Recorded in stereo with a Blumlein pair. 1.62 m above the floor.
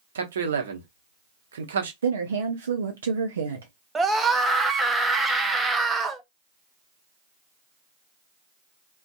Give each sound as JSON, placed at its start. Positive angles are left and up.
{"t": 0.1, "sound": "a man speaking", "azimuth_deg": -65, "distance_m": 0.8}
{"t": 2.0, "sound": "a woman speaking", "azimuth_deg": -70, "distance_m": 0.5}
{"t": 4.0, "sound": "a scream", "azimuth_deg": -10, "distance_m": 0.7}